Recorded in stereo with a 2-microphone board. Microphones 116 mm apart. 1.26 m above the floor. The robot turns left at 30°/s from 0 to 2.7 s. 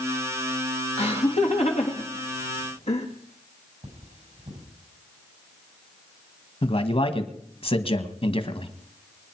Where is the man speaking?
55° left (ahead or behind), 1.6 m.